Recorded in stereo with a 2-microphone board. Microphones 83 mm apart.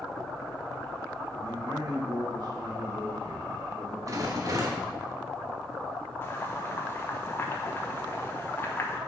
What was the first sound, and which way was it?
A man speaking, 50° right (ahead or behind).